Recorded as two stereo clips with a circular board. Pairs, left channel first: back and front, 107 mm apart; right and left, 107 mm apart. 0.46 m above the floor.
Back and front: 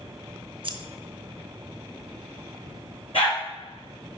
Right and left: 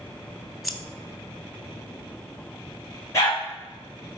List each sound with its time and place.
0.6 s scissors: straight ahead, 0.7 m
3.1 s a dog barking: 150° right, 3.5 m